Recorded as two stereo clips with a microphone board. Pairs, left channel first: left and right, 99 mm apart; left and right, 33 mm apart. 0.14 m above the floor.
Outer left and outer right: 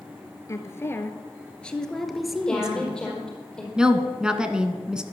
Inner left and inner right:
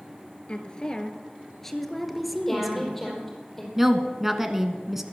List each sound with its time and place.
0.5 s a woman speaking: 30° left (ahead or behind), 2.0 m; by 3.1 s 15° right (ahead or behind), 2 m
2.5 s a woman speaking: 10° left (ahead or behind), 4.5 m
3.8 s a woman speaking: 10° right (ahead or behind), 1.3 m